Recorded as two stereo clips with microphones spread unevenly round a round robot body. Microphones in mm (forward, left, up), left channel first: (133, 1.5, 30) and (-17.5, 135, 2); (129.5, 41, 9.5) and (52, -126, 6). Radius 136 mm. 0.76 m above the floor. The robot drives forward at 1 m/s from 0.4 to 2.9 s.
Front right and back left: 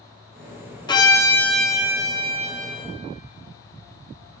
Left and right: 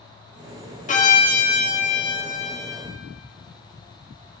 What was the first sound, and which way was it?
A violin, 30° left.